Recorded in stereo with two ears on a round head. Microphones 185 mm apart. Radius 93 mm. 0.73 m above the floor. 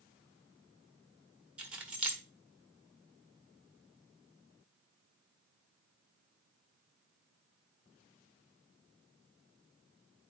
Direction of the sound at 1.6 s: 5° right (ahead or behind).